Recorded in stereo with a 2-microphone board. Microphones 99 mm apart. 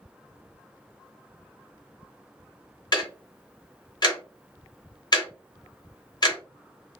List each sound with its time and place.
2.9 s ticking: 45° left (ahead or behind), 0.8 m